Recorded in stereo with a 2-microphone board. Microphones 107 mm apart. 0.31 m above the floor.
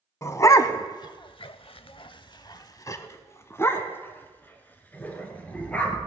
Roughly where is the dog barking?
Left.